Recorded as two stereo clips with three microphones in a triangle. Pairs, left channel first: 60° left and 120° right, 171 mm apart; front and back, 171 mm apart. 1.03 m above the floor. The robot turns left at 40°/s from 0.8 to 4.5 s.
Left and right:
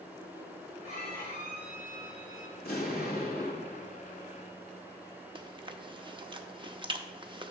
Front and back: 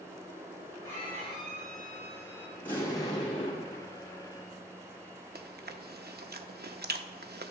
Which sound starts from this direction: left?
An explosion, at 2.6 s.